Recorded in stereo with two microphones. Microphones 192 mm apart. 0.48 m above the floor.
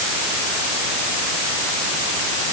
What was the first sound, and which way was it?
Only background noise.